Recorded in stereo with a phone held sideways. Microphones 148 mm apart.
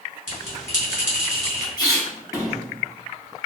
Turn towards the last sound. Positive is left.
turn(degrees=25)  # may be behind; listen again after turning